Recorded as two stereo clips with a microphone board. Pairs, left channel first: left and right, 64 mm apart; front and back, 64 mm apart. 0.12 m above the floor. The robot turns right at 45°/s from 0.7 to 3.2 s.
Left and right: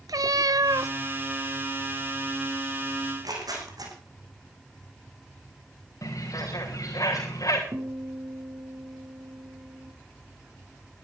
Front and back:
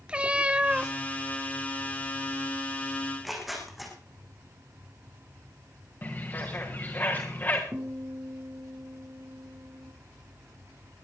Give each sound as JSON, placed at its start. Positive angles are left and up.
{"t": 0.1, "sound": "a cat meowing", "azimuth_deg": -105, "distance_m": 0.5}
{"t": 3.0, "sound": "tearing paper", "azimuth_deg": -100, "distance_m": 5.5}
{"t": 6.0, "sound": "a bird", "azimuth_deg": 60, "distance_m": 4.0}
{"t": 7.7, "sound": "a guitar", "azimuth_deg": -115, "distance_m": 5.0}